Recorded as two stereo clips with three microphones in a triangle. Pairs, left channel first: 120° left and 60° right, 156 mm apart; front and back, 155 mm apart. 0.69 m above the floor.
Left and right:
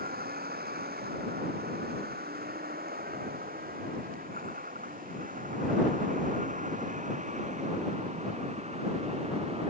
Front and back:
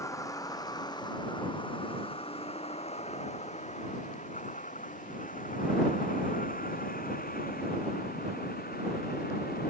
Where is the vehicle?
70° right; by 9.7 s 10° right.